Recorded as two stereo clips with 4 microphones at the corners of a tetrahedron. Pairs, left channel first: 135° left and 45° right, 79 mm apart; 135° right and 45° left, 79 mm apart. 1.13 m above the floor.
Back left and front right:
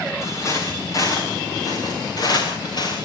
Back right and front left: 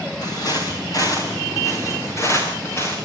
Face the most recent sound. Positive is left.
turn(degrees=165)